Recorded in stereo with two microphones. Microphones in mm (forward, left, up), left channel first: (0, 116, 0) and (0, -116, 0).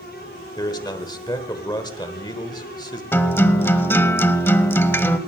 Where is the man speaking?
20° left (ahead or behind), 1.2 m.